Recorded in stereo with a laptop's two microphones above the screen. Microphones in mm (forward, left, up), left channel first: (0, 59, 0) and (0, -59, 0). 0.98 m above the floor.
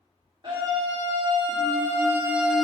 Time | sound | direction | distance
0.4 | a scream | 40° right (ahead or behind) | 1.9 m